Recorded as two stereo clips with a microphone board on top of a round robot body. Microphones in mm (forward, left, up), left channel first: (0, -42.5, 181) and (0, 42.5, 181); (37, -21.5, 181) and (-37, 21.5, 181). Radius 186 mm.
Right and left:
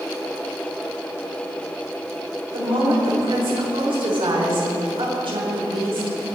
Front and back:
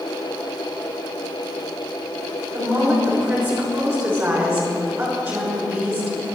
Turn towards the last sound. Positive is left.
turn(degrees=90)